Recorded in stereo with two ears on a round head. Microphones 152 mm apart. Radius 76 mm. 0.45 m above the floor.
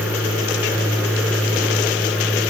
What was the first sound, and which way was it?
Only background noise.